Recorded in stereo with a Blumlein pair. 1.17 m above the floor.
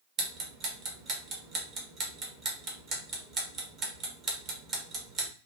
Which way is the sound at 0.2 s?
25° right.